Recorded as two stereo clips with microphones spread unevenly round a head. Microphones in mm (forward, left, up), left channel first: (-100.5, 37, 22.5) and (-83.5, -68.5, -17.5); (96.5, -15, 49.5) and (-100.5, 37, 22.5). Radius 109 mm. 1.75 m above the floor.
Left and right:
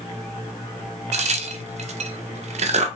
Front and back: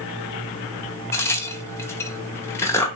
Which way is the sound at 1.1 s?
95° right.